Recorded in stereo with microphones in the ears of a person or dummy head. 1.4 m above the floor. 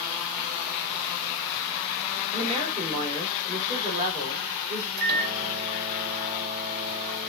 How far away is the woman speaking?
About 1.7 m.